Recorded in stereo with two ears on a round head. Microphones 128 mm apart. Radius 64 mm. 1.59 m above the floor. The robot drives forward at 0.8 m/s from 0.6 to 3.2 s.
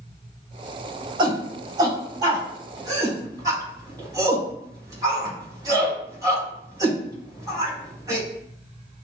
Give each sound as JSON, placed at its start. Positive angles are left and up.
{"t": 1.2, "sound": "a shout", "side_deg": -35, "distance_m": 4.0}